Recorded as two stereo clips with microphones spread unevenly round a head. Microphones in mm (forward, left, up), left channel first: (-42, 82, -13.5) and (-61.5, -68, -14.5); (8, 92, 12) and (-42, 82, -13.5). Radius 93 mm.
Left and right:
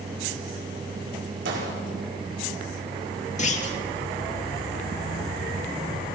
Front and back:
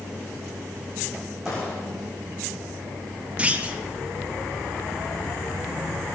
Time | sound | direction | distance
1.4 | a gunshot | 85° right | 5.5 m
3.4 | a clunk | 125° left | 2.5 m